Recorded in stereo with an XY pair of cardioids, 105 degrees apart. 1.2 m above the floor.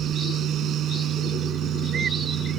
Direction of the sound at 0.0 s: 70° right.